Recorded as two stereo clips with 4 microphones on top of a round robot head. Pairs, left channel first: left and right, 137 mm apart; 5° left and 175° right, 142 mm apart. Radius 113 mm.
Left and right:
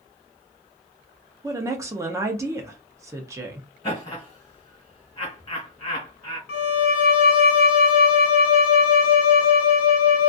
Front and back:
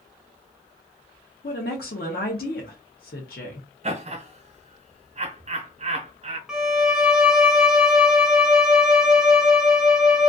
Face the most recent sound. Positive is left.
turn(degrees=100)